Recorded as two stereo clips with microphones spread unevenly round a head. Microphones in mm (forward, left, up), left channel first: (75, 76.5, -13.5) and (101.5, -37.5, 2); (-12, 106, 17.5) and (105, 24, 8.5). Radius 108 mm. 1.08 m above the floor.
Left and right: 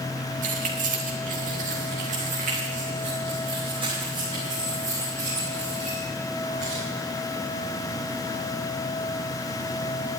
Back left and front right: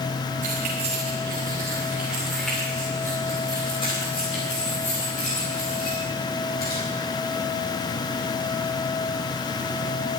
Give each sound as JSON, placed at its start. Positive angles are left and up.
{"t": 0.4, "sound": "keys jangling", "azimuth_deg": -90, "distance_m": 2.5}